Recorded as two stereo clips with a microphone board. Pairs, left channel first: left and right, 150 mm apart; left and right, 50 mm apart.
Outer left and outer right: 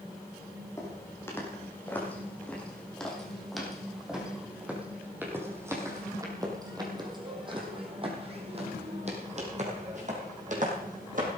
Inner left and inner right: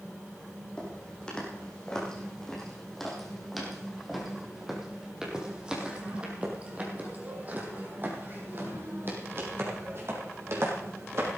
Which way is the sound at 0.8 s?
20° left (ahead or behind).